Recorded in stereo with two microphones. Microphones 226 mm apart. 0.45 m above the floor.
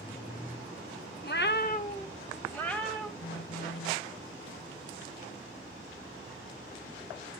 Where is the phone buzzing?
65° left (ahead or behind), 1.0 m.